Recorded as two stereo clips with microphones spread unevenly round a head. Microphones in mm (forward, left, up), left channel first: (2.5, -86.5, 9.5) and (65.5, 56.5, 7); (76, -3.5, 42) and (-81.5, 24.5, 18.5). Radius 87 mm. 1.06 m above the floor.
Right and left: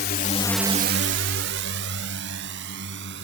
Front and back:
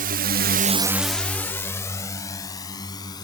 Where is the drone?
155° right; by 3.2 s 55° left.